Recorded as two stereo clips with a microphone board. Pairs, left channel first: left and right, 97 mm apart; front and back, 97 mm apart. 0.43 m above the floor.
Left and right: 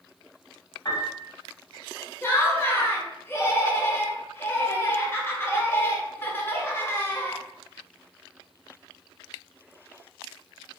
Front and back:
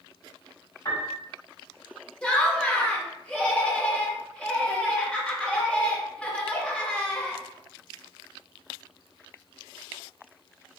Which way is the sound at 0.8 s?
45° left.